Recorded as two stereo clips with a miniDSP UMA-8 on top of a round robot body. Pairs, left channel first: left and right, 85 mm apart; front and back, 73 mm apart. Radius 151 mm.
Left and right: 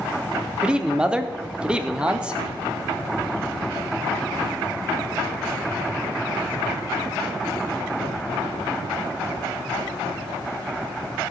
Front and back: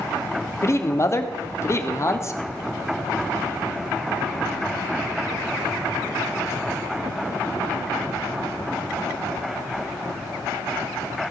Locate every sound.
0.6 s a man speaking: 15° right, 1.8 m